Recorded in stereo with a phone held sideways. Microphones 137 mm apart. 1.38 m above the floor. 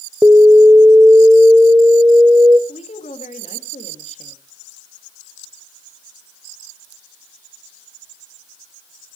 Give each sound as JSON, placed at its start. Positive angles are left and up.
{"t": 0.2, "sound": "an alarm", "side_deg": -15, "distance_m": 0.6}
{"t": 2.7, "sound": "a woman speaking", "side_deg": 55, "distance_m": 2.5}